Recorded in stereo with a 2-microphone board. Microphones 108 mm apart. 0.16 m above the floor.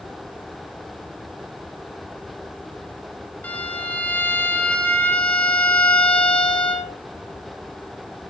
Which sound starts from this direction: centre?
A violin, at 3.4 s.